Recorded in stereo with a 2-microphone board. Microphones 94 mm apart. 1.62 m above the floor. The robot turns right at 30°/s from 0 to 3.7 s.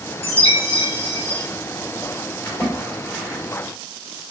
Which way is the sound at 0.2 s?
100° left.